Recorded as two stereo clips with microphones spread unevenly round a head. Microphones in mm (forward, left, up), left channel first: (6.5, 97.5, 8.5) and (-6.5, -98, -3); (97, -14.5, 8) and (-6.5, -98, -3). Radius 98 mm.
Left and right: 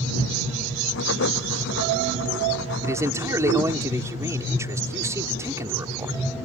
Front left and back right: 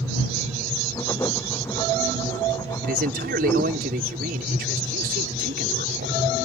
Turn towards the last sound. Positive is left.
turn(degrees=-170)